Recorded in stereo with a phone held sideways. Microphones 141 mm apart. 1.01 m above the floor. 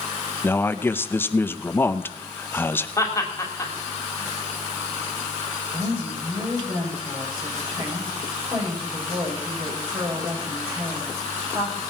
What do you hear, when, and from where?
0.4 s a man speaking: 15° left (ahead or behind), 0.7 m
3.0 s laughter: 20° left (ahead or behind), 3 m
5.7 s a woman speaking: 40° right (ahead or behind), 5.5 m